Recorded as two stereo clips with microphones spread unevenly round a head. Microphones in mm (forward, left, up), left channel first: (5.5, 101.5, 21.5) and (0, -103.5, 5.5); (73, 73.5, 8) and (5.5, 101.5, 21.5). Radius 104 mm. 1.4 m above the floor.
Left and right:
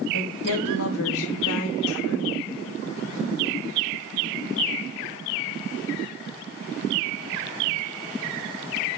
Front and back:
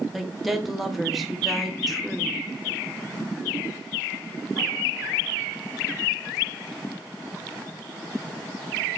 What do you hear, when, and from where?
0.1 s a woman speaking: 70° left, 0.9 m